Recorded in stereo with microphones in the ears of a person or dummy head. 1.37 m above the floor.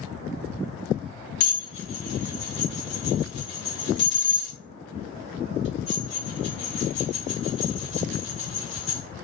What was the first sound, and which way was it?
Dishes clattering, 65° left (ahead or behind).